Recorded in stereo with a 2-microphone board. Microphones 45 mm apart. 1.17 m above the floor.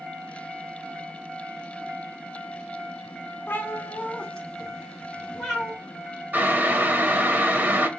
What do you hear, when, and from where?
3.5 s a cat meowing: 50° left (ahead or behind), 0.7 m; by 5.8 s 10° right (ahead or behind), 1.7 m
6.3 s boiling: 40° right (ahead or behind), 0.8 m